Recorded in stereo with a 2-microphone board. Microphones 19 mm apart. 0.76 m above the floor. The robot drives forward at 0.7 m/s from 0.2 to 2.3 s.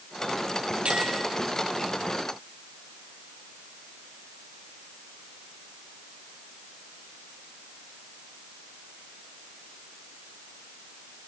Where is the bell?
75° right (ahead or behind), 9 m; by 1.2 s 80° right, 9 m.